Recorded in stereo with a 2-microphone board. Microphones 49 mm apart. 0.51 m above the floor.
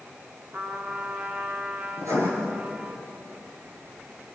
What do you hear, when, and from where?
0.5 s a trumpet: 40° right (ahead or behind), 3 m
2.0 s writing: 80° right, 6.5 m